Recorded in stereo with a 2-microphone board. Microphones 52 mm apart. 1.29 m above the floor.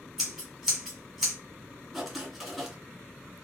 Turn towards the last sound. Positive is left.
turn(degrees=-5)  # may be behind; listen again after turning